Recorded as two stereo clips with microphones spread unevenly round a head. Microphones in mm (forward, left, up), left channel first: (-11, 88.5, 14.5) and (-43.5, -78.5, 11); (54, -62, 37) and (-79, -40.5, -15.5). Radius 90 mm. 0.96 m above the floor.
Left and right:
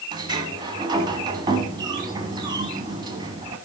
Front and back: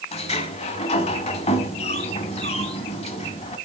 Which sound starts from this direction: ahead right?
A sliding door, at 0.1 s.